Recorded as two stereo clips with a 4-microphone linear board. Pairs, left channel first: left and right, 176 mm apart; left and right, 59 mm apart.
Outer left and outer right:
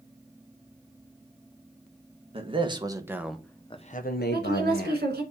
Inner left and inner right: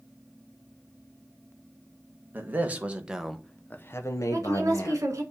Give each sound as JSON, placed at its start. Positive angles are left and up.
{"t": 2.3, "sound": "a man speaking", "side_deg": -30, "distance_m": 1.4}
{"t": 4.3, "sound": "a woman speaking", "side_deg": -60, "distance_m": 2.0}